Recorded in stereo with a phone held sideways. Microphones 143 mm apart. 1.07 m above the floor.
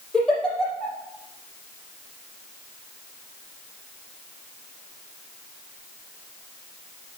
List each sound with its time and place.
0.1 s a giggle: 5° left (ahead or behind), 4.5 m